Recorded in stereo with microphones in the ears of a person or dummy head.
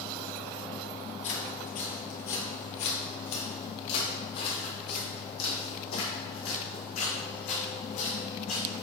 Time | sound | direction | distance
1.2 | footsteps | 35° left (ahead or behind) | 1.5 m